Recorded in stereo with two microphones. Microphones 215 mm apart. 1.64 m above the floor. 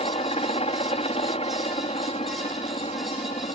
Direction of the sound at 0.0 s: 30° left (ahead or behind).